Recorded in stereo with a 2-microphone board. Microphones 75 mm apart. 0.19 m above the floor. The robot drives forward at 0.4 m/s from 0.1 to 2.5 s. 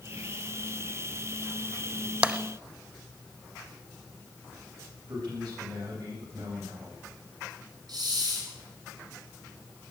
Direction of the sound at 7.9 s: 75° right (ahead or behind).